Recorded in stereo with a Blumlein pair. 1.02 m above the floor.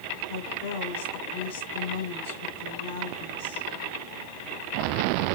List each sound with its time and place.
0.3 s a woman speaking: 60° left, 3.5 m